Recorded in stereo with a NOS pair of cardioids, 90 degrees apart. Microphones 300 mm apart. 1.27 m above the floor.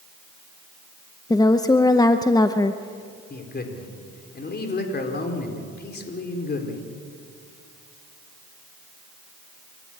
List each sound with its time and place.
1.3 s a woman speaking: 10° left, 0.8 m
3.3 s a man speaking: 35° left, 4 m